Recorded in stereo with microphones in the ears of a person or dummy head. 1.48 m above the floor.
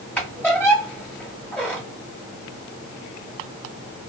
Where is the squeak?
5° left (ahead or behind), 1.4 m.